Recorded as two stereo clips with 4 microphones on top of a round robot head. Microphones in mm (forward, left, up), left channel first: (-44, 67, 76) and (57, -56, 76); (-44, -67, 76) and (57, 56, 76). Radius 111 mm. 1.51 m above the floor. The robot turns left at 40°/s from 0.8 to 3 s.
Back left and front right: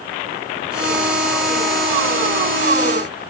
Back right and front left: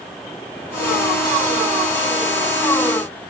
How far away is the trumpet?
No trumpet in this recording.